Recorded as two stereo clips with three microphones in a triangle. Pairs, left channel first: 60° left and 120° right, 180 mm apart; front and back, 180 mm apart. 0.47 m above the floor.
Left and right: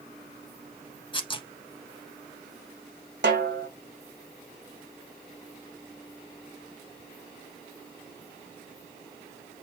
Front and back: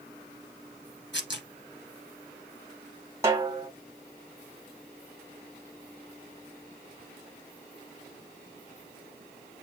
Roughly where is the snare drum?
Right.